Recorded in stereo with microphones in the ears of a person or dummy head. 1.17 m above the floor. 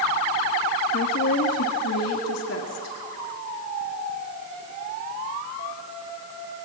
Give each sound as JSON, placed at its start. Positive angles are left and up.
{"t": 0.9, "sound": "a woman speaking", "side_deg": 60, "distance_m": 1.4}